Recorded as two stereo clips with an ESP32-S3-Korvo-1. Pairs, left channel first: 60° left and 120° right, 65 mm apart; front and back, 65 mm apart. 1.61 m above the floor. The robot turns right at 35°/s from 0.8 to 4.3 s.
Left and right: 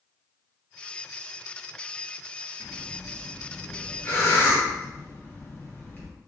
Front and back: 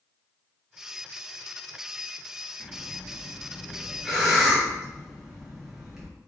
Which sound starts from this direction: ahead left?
Breathing, at 2.6 s.